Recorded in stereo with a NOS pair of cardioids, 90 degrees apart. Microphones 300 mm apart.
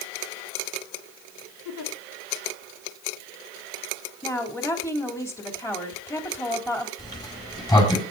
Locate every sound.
1.6 s a giggle: 70° left, 2.5 m
4.2 s a woman speaking: 10° left, 4 m
7.0 s a sliding door: 15° left, 6 m